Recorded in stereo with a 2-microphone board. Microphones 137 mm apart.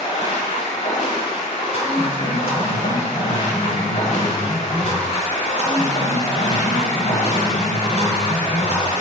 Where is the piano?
40° left (ahead or behind), 1.8 m.